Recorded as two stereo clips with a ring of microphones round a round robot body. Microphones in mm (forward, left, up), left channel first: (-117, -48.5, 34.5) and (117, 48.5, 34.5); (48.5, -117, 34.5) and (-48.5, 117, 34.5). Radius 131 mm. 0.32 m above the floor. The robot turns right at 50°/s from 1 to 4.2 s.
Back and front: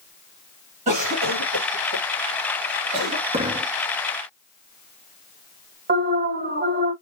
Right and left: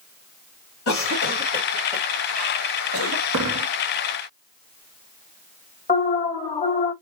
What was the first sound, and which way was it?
A cough, 40° right.